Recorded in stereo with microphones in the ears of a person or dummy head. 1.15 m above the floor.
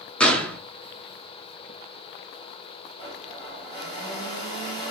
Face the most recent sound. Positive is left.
turn(degrees=30)  # may be behind; listen again after turning